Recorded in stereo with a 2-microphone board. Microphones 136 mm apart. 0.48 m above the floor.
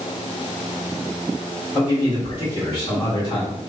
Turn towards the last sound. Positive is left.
turn(degrees=35)  # may be behind; listen again after turning